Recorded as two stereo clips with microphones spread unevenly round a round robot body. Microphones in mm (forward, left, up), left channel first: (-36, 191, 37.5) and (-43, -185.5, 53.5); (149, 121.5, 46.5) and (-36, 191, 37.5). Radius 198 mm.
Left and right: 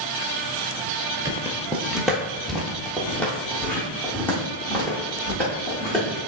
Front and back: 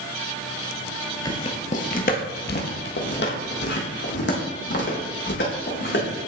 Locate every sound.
1.2 s footsteps: 30° right, 0.6 m; by 6.0 s 5° left, 3 m